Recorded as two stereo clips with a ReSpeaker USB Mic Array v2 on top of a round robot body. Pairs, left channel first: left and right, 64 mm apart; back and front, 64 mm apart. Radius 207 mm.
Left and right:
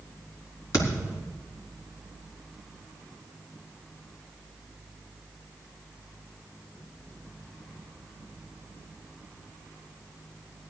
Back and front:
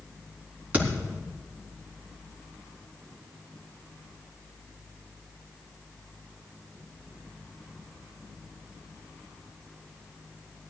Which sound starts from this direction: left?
A thud, at 0.7 s.